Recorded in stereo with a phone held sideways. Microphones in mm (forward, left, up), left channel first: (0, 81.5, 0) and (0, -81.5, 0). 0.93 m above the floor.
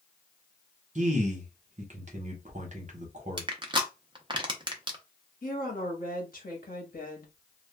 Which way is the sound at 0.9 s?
50° right (ahead or behind).